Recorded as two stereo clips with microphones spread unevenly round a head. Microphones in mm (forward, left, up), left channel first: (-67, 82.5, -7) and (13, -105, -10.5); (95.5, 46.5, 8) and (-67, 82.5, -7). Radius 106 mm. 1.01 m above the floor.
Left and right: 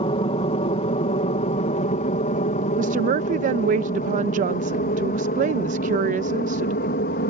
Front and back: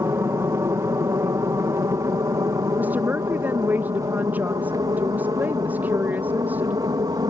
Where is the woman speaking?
115° right.